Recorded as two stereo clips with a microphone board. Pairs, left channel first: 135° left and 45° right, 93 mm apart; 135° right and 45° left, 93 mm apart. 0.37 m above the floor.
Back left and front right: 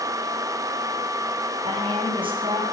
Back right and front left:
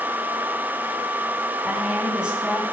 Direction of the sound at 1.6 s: 35° right.